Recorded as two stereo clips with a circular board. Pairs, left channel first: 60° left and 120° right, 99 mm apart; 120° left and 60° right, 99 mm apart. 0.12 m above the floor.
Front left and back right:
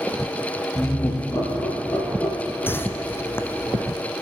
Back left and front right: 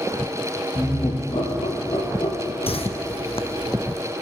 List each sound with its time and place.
0.8 s laughter: 110° left, 3.5 m
2.7 s a whoosh: 125° left, 0.7 m